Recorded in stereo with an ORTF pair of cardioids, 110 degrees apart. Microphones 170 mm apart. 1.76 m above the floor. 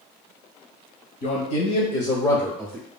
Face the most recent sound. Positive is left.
turn(degrees=-25)